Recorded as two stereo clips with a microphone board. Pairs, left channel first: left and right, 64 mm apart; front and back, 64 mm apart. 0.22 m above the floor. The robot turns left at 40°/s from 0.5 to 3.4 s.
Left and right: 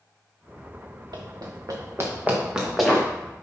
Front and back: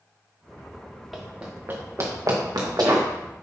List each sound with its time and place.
1.1 s running footsteps: 90° right, 1.7 m; by 3.1 s 165° left, 2.5 m